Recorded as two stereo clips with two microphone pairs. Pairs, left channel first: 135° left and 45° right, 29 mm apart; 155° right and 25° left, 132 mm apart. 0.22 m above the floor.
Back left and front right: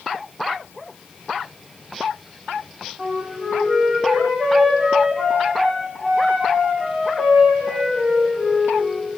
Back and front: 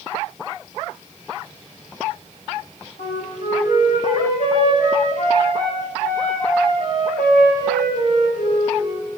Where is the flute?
130° right, 8.5 m.